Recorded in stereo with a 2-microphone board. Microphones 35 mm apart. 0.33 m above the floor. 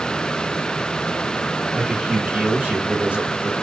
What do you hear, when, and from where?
1.7 s a man speaking: 35° right (ahead or behind), 1.7 m